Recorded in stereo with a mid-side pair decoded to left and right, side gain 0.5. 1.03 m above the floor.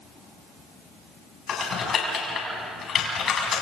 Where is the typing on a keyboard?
55° left, 5.5 m.